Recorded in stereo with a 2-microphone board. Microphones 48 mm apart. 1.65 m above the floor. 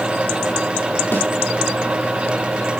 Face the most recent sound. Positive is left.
turn(degrees=55)  # may be behind; listen again after turning